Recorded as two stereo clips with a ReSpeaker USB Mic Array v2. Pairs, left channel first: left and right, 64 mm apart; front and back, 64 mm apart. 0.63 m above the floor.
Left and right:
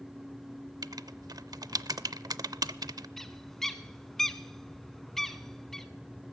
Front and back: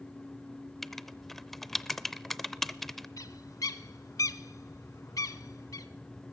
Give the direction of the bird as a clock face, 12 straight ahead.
12 o'clock.